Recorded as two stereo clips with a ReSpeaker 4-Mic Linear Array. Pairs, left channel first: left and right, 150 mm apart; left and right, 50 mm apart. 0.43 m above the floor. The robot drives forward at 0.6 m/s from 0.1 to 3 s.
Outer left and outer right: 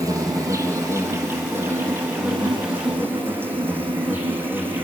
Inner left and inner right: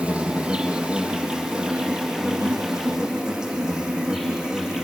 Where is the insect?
20° right (ahead or behind), 2.5 m; by 4.8 s 15° right (ahead or behind), 4 m.